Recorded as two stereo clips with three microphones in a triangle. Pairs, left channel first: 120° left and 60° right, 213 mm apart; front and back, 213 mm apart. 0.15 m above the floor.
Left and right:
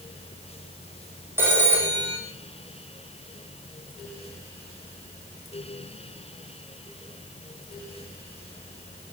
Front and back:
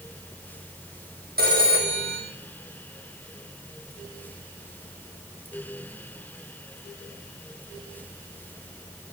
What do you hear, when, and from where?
1.4 s a phone ringing: 140° right, 5.5 m